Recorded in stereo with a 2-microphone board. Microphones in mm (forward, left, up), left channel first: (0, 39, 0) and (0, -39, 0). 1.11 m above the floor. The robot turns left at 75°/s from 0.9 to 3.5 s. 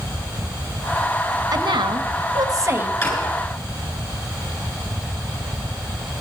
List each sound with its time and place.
1.5 s a woman speaking: 55° right, 1.3 m; by 2.9 s 160° right, 1.3 m
3.0 s a drawer: 30° left (ahead or behind), 5.5 m; by 3.2 s 45° left (ahead or behind), 5.5 m